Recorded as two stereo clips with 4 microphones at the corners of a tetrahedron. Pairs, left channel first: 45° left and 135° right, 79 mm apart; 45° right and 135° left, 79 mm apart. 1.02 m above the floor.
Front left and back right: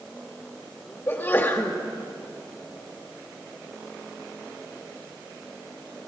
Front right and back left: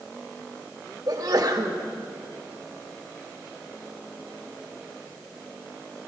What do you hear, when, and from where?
1.1 s a sneeze: 95° left, 2.0 m